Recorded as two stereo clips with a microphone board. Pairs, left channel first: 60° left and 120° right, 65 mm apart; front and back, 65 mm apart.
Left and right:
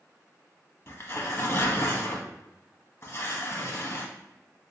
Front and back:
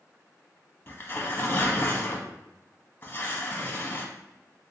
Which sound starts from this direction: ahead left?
Tearing paper, at 0.9 s.